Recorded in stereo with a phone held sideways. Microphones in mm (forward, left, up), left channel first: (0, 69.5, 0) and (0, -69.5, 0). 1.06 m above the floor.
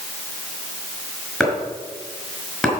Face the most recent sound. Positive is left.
turn(degrees=0)  # may be behind; listen again after turning